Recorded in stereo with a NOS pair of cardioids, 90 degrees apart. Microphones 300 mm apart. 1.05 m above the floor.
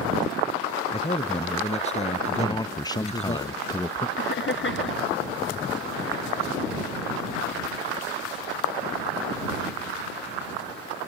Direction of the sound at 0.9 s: 20° left.